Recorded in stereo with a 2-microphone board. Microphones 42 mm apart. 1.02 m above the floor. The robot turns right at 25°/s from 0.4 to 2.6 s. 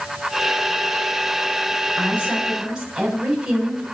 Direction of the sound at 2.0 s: 35° right (ahead or behind).